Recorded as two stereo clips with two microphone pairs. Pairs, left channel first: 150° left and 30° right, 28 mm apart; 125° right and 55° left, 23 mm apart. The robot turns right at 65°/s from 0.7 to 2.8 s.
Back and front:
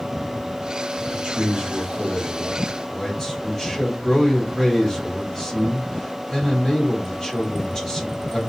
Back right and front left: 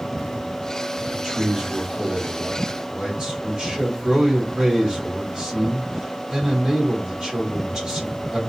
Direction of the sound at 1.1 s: 25° right.